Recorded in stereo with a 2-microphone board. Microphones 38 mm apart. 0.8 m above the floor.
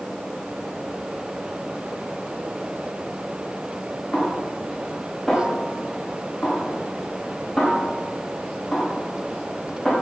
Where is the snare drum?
5° left (ahead or behind), 5.5 m.